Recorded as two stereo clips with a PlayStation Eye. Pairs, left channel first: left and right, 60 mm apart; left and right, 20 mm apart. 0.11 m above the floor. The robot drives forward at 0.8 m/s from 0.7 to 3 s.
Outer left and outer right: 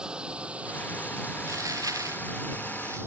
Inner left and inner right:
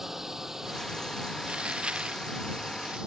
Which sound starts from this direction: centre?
A drone, at 0.0 s.